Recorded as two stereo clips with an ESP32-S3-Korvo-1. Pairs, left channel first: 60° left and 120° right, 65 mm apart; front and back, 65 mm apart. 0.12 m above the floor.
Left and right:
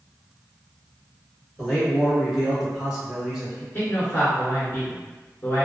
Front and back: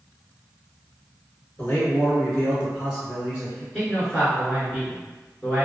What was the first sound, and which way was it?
A man speaking, 40° right.